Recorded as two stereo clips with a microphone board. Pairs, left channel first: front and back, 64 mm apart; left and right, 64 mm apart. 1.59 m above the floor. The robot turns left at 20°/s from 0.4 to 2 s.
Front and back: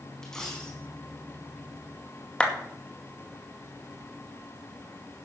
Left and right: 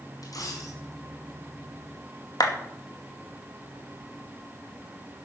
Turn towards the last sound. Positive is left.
turn(degrees=75)